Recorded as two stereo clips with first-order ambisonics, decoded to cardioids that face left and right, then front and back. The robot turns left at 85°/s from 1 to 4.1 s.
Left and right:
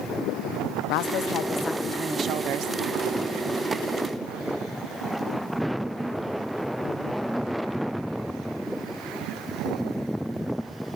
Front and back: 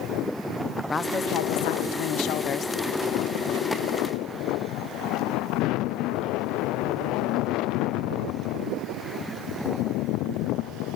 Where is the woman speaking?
75° left, 0.6 m; by 2.8 s 75° right, 0.6 m.